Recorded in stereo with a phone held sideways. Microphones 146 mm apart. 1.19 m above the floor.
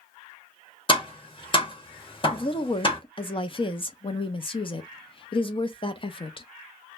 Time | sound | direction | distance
0.9 | tapping | 35° left (ahead or behind) | 0.9 m
2.3 | a woman speaking | 35° left (ahead or behind) | 0.5 m